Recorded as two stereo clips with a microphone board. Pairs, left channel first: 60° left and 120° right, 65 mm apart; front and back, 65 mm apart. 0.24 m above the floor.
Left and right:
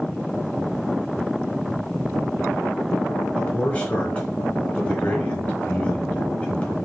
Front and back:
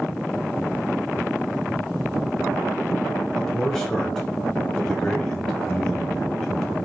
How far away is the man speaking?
About 1.1 m.